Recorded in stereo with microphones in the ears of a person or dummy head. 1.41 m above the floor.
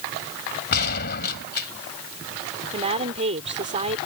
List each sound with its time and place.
0.7 s a gunshot: 60° left (ahead or behind)
2.7 s a woman speaking: 35° right (ahead or behind)